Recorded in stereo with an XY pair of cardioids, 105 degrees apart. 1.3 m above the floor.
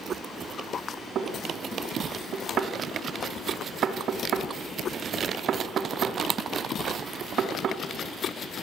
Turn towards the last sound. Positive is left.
turn(degrees=-60)